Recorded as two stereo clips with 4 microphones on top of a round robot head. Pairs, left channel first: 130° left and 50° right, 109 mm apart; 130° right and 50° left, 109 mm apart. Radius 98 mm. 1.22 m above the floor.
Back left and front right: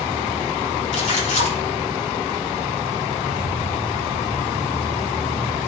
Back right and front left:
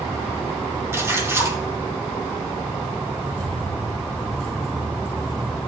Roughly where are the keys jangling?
Ahead left.